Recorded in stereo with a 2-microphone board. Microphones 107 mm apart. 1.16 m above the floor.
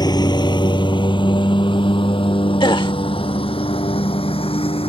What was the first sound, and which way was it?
A lawn mower, 40° left (ahead or behind).